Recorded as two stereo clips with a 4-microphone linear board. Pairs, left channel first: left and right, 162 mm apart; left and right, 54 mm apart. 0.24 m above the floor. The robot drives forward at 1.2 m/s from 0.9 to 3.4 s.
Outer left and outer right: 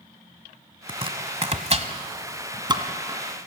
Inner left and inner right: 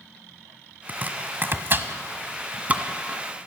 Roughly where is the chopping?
Right.